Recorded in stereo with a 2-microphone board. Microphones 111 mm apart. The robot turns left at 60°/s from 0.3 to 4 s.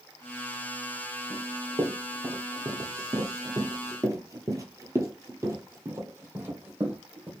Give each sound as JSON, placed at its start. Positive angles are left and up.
{"t": 1.3, "sound": "running footsteps", "side_deg": 0, "distance_m": 2.0}